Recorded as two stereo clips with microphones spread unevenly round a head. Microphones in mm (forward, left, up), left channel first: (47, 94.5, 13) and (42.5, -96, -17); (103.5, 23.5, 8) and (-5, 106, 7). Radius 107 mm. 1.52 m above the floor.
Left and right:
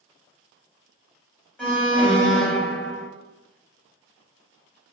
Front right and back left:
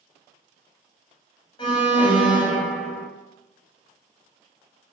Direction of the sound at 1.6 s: 10° left.